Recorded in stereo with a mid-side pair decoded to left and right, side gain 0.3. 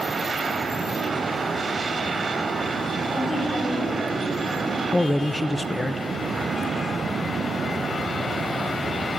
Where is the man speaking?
25° left, 0.5 m.